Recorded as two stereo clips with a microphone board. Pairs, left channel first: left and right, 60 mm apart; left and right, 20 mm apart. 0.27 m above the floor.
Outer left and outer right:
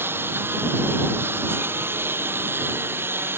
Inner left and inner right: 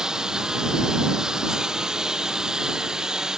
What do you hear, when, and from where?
0.0 s a lawn mower: 35° right (ahead or behind)